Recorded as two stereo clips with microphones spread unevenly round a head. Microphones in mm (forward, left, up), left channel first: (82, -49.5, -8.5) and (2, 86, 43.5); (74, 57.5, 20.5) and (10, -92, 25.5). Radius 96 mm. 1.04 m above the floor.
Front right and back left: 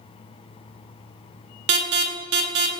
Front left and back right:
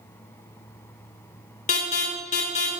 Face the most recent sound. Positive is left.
turn(degrees=120)